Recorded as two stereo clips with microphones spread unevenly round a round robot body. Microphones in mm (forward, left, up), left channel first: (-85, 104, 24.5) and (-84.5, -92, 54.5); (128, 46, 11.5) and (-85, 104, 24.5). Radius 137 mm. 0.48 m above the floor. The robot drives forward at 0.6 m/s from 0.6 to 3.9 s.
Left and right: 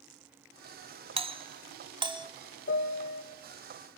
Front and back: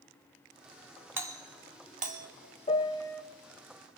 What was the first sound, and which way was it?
A doorbell, 120° right.